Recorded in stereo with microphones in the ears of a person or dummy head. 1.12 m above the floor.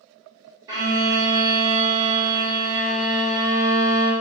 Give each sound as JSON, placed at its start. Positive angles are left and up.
{"t": 0.7, "sound": "a violin", "side_deg": -20, "distance_m": 0.8}